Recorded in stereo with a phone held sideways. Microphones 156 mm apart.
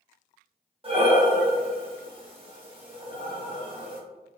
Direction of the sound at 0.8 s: 35° right (ahead or behind).